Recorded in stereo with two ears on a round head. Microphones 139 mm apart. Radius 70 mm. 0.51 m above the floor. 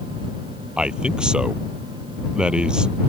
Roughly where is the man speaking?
Centre.